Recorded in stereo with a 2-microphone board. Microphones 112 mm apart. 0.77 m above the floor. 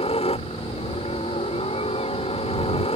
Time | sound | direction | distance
0.0 | a helicopter | 60° left (ahead or behind) | ?